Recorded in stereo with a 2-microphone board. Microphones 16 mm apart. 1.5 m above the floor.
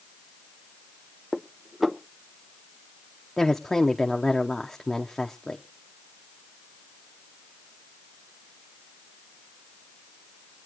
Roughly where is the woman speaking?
Left.